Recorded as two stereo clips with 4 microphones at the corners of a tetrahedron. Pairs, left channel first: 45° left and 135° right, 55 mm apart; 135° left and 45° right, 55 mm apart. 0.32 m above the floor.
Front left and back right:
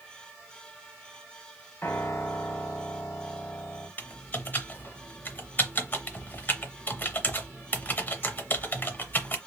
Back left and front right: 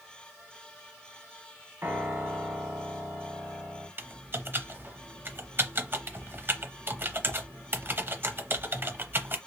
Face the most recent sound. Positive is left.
turn(degrees=-5)